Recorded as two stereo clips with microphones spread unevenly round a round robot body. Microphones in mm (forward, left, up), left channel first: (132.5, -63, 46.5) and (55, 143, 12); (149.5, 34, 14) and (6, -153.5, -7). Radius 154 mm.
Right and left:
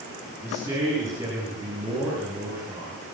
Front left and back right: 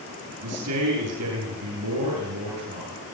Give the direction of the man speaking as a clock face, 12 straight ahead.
6 o'clock.